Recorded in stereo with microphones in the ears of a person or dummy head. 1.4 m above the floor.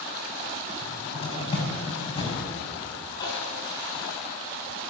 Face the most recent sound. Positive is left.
turn(degrees=20)  # may be behind; listen again after turning